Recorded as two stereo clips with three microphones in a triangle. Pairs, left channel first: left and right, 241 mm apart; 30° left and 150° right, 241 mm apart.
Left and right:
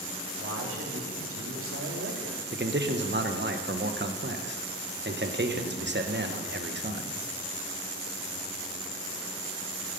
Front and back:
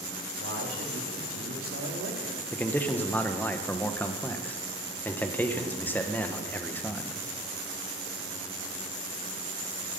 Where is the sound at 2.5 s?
50° right, 1.2 m.